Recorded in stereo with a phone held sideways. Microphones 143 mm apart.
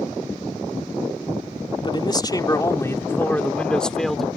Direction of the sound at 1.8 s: 35° left (ahead or behind).